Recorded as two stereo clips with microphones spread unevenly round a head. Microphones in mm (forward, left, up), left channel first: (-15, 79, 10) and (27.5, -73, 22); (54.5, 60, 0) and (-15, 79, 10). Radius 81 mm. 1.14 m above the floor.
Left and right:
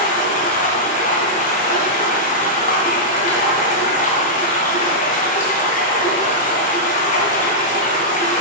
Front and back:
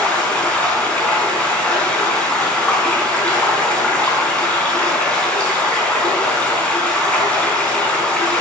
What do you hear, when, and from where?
0.0 s running water: 60° left, 4 m